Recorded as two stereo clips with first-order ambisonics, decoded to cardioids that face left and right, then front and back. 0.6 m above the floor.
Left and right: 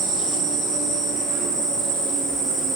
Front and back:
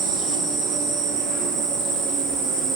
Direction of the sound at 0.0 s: 145° right.